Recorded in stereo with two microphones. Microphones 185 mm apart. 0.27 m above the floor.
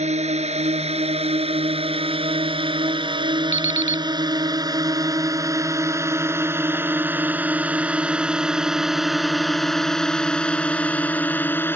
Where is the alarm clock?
35° left (ahead or behind).